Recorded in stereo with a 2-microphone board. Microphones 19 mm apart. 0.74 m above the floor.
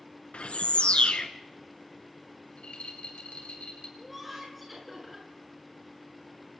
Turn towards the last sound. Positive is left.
turn(degrees=0)  # may be behind; listen again after turning